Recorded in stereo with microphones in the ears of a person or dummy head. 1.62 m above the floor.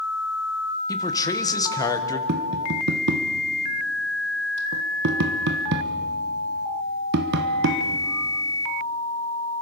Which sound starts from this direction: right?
Tapping, at 2.3 s.